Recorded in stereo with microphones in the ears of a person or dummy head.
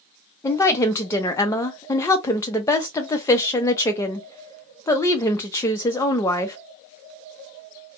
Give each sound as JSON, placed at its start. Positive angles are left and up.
{"t": 0.4, "sound": "a woman speaking", "side_deg": 15, "distance_m": 0.5}